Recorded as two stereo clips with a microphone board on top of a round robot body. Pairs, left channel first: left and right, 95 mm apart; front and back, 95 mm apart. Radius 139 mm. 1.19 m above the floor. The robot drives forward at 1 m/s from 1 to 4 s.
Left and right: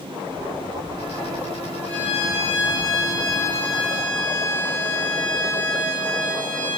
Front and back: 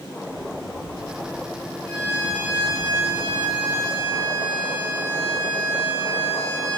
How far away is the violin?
About 2 m.